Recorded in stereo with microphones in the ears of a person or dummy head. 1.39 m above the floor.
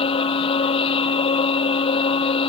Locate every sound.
0.0 s a machine running: 35° left (ahead or behind)